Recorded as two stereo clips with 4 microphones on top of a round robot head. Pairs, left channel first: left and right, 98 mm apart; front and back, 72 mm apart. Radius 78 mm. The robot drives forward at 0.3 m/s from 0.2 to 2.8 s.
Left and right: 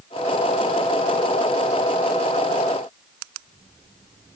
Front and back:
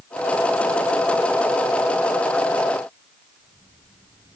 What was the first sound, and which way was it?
Only background noise.